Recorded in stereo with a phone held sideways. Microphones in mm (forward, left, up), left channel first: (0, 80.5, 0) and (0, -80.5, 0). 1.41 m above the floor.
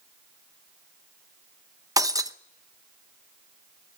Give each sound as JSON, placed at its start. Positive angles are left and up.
{"t": 2.0, "sound": "breaking glass", "side_deg": -20, "distance_m": 0.8}